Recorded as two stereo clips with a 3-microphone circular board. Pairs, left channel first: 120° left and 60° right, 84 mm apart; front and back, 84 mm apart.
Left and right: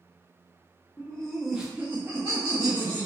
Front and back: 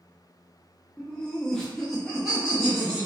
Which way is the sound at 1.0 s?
65° left.